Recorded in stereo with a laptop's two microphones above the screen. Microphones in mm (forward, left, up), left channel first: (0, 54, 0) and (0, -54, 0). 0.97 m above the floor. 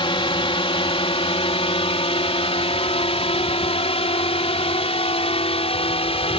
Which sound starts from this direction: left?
A drone, at 0.0 s.